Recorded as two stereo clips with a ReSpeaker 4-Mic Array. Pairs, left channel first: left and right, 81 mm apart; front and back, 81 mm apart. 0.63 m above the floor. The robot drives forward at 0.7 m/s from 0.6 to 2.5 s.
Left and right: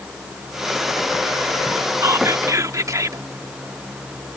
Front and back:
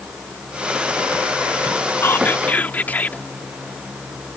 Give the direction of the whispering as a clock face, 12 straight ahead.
2 o'clock.